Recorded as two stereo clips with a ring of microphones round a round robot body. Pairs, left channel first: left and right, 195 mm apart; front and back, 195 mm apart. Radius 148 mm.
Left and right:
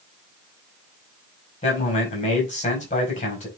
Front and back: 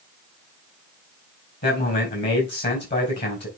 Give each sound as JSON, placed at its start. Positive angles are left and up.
{"t": 1.6, "sound": "a man speaking", "azimuth_deg": 35, "distance_m": 4.5}